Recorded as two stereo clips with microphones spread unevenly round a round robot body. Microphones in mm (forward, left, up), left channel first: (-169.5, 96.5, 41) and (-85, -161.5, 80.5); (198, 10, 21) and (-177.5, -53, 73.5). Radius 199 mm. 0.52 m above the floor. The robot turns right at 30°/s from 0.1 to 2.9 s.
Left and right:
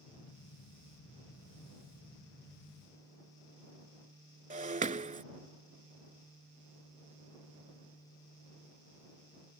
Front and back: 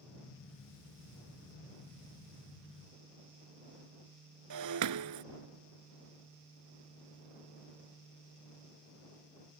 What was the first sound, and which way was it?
Breaking glass, 130° right.